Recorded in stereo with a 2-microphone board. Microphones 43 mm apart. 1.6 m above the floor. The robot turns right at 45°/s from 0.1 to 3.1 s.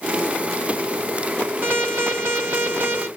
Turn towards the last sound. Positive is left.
turn(degrees=-70)